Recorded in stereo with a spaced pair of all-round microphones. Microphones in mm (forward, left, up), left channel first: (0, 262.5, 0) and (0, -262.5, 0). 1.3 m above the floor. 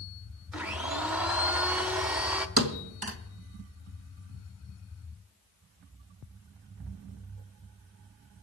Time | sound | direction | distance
0.5 | a blender | 5° right (ahead or behind) | 0.9 m
2.6 | a thud | 45° right (ahead or behind) | 1.3 m